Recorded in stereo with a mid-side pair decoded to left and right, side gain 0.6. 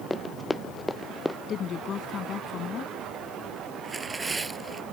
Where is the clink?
No clink in this recording.